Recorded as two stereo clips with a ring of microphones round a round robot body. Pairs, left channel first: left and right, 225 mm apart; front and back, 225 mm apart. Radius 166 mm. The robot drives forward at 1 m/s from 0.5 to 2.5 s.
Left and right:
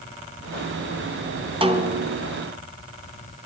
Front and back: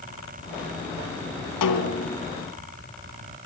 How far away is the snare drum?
About 2.5 m.